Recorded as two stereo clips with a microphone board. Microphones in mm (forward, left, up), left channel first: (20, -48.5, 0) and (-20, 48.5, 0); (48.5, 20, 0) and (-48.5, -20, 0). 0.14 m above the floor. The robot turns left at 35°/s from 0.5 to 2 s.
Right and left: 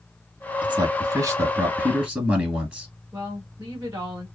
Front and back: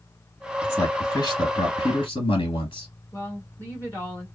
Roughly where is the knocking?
No knocking in this recording.